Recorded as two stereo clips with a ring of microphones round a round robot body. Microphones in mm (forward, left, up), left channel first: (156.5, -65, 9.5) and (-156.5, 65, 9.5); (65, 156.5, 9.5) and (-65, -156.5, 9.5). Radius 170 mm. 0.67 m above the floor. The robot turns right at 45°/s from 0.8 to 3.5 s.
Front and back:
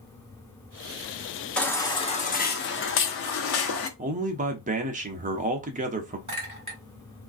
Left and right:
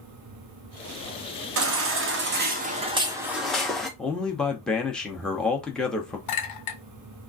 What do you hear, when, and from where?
1.6 s a baby crying: 110° right, 0.7 m; by 3.9 s 20° right, 0.7 m
4.0 s a man speaking: 150° left, 0.6 m
6.3 s a clink: 85° left, 1.6 m